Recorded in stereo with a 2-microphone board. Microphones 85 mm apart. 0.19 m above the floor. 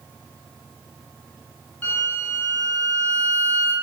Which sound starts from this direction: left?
A violin, at 1.8 s.